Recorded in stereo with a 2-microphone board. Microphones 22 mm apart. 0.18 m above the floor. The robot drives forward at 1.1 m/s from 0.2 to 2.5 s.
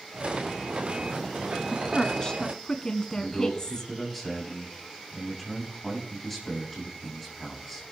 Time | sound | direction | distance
1.7 | a woman speaking | 30° left (ahead or behind) | 1.3 m
3.1 | a man speaking | centre (ahead or behind) | 7 m